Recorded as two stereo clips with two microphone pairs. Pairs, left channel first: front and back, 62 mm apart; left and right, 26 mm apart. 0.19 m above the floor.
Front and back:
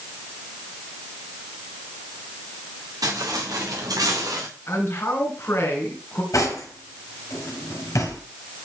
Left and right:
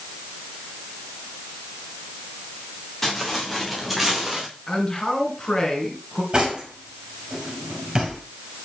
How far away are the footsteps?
About 4 m.